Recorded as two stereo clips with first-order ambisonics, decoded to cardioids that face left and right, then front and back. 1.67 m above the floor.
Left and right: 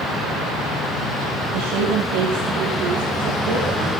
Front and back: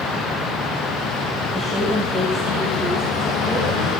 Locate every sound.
1.5 s a woman speaking: 80° right, 3.5 m; by 3.9 s 90° right, 6 m